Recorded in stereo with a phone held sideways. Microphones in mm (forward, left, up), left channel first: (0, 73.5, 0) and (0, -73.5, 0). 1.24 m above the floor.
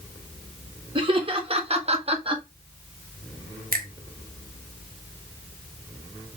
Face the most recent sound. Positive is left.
turn(degrees=-75)  # may be behind; listen again after turning